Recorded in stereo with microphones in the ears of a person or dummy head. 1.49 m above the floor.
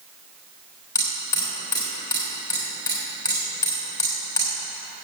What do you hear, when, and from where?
0.9 s hammering: 20° left (ahead or behind), 3.5 m